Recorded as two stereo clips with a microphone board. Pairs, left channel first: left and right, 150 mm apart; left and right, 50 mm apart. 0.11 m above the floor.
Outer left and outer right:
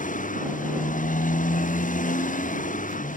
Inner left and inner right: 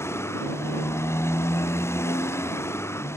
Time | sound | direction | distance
0.0 | a motorcycle | 60° left (ahead or behind) | ?